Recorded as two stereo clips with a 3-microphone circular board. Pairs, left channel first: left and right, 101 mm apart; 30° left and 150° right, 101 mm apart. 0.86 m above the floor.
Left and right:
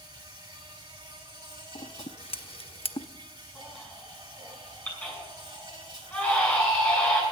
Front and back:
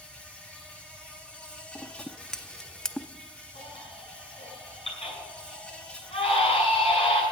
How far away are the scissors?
About 0.5 m.